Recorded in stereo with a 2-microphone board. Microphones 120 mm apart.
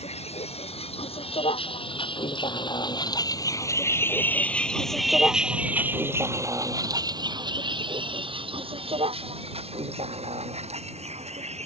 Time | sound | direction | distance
0.0 | a vehicle | 60° left (ahead or behind) | ?